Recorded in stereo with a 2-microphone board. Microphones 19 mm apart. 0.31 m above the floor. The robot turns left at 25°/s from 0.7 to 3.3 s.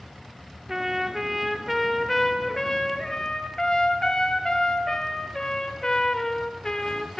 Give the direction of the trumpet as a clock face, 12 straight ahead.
5 o'clock.